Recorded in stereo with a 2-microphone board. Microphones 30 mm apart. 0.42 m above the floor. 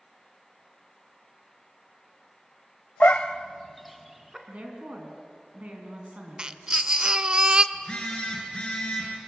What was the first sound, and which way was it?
A dog barking, 60° left (ahead or behind).